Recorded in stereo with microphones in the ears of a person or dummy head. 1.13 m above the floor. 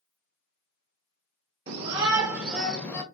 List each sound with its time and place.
1.7 s a shout: 40° right (ahead or behind), 1.0 m; by 3.0 s 15° left (ahead or behind), 0.9 m